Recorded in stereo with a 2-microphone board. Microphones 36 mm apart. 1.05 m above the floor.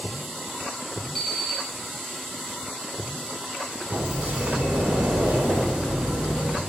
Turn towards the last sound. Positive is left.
turn(degrees=-45)  # may be behind; listen again after turning